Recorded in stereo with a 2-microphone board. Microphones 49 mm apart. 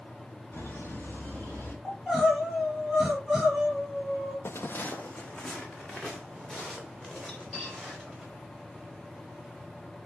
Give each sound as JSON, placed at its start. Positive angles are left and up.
{"t": 0.5, "sound": "laughter", "side_deg": 45, "distance_m": 3.0}
{"t": 1.9, "sound": "crying", "side_deg": 5, "distance_m": 4.0}
{"t": 4.5, "sound": "footsteps", "side_deg": 60, "distance_m": 0.5}
{"t": 7.3, "sound": "cutlery clinking", "side_deg": 10, "distance_m": 5.5}